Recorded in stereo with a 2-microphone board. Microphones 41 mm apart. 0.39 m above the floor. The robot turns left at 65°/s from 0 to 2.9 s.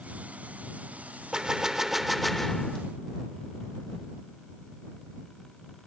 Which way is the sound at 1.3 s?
20° right (ahead or behind).